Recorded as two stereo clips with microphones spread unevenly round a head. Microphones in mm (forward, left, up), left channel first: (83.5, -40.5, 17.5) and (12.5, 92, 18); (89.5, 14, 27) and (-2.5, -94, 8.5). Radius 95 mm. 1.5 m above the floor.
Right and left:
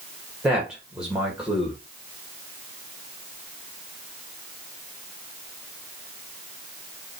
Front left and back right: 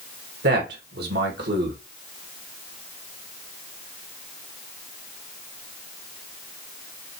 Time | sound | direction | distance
0.4 | a man speaking | 155° right | 2.5 m